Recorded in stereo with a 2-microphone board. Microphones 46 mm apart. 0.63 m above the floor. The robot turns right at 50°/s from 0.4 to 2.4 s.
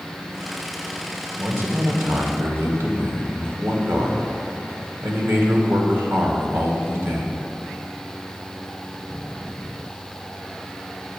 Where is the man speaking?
125° right, 1.9 m; by 7.4 s 75° right, 1.9 m.